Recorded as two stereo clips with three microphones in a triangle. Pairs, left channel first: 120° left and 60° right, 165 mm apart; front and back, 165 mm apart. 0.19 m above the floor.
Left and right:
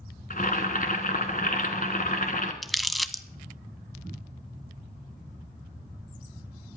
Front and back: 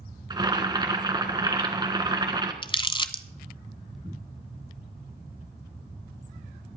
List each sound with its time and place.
0.3 s boiling: 120° left, 1.4 m
2.6 s crumpling: 30° left, 0.6 m